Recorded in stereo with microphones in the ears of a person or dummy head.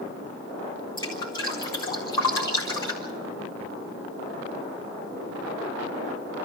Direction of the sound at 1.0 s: 25° left (ahead or behind).